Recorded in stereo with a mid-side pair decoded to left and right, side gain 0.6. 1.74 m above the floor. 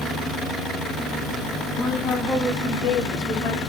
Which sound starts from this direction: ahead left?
A woman speaking, at 1.8 s.